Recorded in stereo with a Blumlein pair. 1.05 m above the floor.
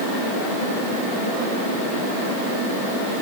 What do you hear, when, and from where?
Only background noise.